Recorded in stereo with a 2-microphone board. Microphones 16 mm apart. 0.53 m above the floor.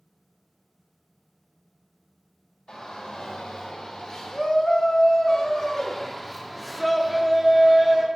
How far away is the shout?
About 2.5 m.